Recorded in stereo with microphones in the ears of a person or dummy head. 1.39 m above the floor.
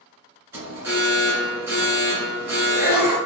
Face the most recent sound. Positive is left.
turn(degrees=-15)  # may be behind; listen again after turning